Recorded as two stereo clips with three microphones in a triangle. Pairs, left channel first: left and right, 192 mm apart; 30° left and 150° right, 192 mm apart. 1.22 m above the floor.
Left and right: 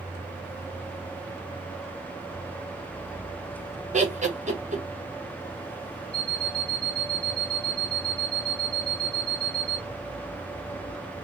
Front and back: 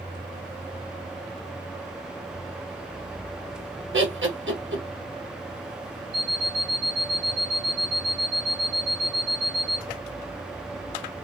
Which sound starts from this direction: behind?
An alarm clock, at 6.1 s.